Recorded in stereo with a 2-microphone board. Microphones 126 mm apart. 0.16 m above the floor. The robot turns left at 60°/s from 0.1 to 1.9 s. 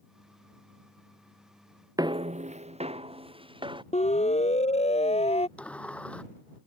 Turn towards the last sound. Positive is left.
turn(degrees=10)  # may be behind; listen again after turning